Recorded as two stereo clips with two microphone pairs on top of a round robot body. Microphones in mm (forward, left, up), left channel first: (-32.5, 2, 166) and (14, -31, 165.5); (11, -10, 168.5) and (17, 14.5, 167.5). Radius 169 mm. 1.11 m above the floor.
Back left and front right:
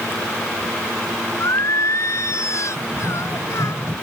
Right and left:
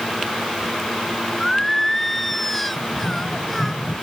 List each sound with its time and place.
1.4 s singing: 175° left
2.8 s running footsteps: 85° right; by 3.9 s 95° right